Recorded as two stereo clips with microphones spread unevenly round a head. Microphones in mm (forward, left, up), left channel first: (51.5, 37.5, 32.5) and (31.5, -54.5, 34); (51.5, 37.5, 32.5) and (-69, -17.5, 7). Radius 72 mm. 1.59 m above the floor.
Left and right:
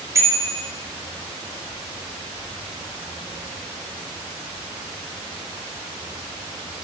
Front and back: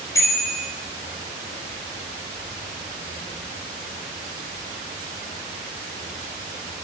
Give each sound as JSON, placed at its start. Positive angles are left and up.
{"t": 0.1, "sound": "a bicycle bell", "azimuth_deg": -45, "distance_m": 4.5}